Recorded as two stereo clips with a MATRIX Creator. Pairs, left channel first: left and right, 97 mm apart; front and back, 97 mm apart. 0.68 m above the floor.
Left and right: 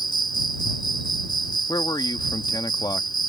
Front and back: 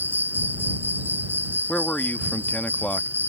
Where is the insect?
115° left.